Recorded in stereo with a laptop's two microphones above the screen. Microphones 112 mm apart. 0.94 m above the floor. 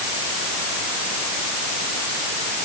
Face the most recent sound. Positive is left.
No sound to turn to.